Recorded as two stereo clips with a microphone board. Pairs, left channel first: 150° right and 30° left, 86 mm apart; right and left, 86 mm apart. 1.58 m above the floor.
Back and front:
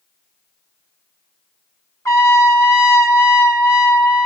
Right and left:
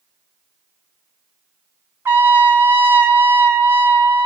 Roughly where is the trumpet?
Behind left.